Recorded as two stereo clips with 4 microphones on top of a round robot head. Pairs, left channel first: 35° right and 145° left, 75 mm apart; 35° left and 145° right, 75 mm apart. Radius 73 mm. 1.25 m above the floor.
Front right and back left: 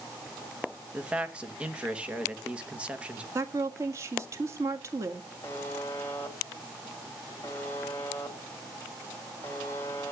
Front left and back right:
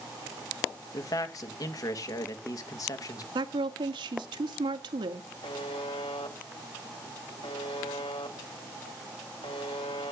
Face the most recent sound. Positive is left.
turn(degrees=25)